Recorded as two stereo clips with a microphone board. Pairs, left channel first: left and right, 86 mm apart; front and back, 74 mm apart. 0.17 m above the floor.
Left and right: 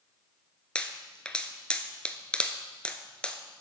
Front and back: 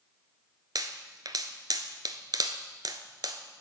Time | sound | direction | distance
0.8 | a pop | 165° left | 0.7 m